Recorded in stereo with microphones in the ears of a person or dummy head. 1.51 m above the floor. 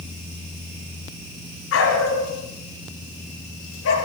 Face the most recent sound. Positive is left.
turn(degrees=70)  # may be behind; listen again after turning